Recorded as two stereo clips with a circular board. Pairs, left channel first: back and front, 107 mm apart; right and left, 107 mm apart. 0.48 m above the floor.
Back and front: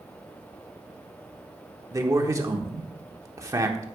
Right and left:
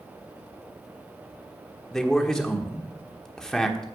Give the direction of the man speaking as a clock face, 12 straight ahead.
12 o'clock.